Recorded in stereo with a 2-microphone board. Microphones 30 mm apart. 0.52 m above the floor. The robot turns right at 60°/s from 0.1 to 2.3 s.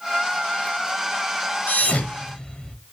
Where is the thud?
70° left (ahead or behind), 1.1 m; by 2.8 s 35° left (ahead or behind), 1.1 m.